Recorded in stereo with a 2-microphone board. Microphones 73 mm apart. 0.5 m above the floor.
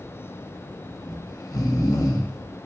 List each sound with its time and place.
1.0 s snoring: 55° left (ahead or behind), 0.9 m